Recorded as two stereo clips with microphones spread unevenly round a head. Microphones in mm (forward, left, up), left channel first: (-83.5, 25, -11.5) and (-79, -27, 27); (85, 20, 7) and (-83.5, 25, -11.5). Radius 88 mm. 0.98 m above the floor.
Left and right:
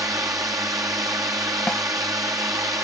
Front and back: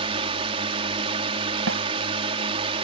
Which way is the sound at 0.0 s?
125° right.